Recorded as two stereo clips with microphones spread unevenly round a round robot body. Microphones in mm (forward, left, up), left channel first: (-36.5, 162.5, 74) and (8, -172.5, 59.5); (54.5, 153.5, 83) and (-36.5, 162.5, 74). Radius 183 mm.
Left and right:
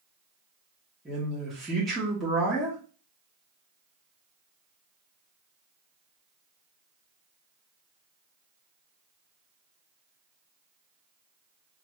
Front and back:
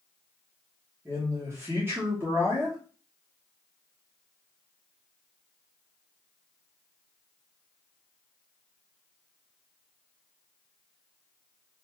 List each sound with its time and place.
1.1 s a man speaking: 170° right, 1.3 m